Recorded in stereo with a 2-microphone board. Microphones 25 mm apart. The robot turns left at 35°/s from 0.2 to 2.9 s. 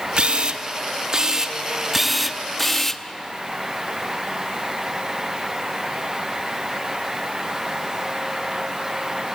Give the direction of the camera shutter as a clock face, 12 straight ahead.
3 o'clock.